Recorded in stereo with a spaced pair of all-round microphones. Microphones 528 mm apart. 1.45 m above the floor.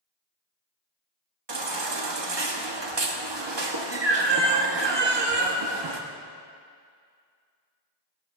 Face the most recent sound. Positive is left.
turn(degrees=-55)  # may be behind; listen again after turning